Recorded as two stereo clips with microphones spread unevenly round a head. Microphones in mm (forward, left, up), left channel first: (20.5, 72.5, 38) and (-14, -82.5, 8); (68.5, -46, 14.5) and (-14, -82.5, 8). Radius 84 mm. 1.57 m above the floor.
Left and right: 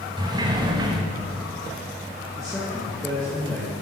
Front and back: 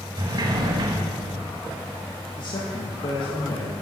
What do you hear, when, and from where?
0.2 s a sliding door: 170° right, 0.9 m
2.4 s a man speaking: 5° right, 1.6 m